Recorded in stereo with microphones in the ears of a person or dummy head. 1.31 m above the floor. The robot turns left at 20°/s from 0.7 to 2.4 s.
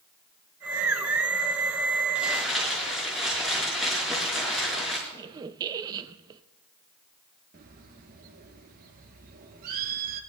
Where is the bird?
50° right (ahead or behind), 1.5 m.